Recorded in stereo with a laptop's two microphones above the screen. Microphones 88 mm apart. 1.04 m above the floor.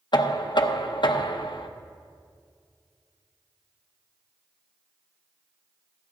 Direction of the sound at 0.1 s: 60° left (ahead or behind).